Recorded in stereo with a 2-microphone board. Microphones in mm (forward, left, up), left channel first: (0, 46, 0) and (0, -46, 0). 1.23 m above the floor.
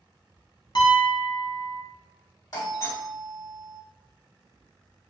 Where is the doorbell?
45° left (ahead or behind), 1.4 m.